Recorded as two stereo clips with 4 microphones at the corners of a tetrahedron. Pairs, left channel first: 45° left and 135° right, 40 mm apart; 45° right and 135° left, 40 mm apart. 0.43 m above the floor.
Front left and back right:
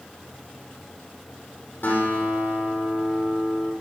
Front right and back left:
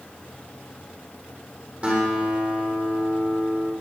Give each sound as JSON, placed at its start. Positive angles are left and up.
{"t": 1.8, "sound": "a guitar", "azimuth_deg": 80, "distance_m": 6.0}